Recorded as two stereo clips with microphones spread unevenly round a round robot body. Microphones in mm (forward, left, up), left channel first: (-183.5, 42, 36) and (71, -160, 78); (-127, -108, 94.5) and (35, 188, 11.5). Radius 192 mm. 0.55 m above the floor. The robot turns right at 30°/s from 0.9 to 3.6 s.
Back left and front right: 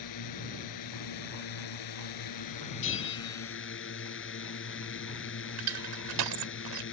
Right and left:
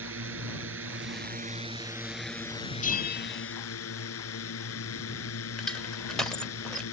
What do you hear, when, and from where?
0.0 s a drone: 110° left; by 6.9 s 165° right
2.8 s a bell: 170° left; by 3.5 s 175° right
5.6 s crushing: 25° right